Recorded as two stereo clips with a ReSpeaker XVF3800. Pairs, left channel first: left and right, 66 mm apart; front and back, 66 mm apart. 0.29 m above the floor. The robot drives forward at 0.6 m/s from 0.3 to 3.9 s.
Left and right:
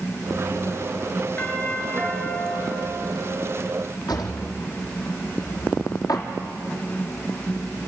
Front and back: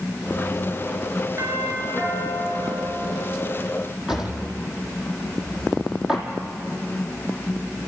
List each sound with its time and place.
1.4 s a doorbell: 150° left, 5 m; by 3.4 s 155° left, 6 m
4.1 s a drawer: 100° left, 3.5 m